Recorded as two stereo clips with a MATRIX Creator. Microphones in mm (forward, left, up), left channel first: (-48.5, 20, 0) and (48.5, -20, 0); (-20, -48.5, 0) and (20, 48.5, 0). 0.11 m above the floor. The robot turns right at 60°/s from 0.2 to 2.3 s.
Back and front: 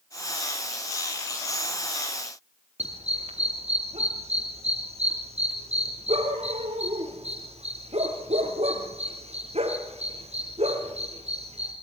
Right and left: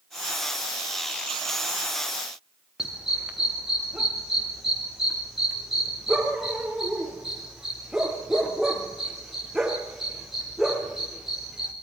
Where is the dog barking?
20° right, 6 m.